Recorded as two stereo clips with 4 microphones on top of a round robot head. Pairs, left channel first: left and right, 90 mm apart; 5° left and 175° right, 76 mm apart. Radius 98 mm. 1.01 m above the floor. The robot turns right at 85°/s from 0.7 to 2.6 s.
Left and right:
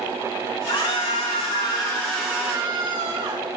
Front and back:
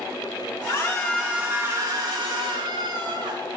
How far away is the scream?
About 9 m.